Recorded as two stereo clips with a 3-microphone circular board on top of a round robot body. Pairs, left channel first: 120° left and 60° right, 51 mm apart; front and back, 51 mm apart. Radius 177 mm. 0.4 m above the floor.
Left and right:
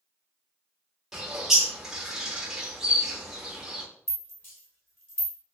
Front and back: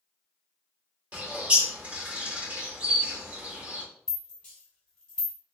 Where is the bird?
135° right, 1.4 m.